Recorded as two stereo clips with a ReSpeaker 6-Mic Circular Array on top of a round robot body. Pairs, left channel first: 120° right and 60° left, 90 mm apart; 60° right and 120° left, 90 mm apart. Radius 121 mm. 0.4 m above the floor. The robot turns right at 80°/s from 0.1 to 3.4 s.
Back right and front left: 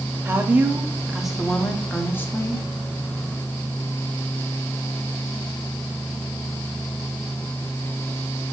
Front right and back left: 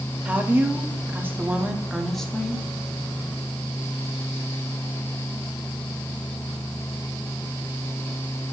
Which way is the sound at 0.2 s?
65° left.